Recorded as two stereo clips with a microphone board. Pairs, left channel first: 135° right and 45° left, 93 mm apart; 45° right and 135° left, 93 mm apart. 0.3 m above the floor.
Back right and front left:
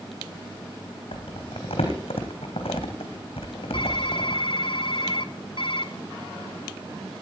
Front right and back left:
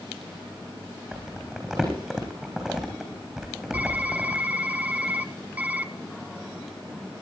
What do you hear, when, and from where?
1.1 s crumpling: 145° right, 3.5 m
3.7 s typing on a keyboard: 155° right, 0.7 m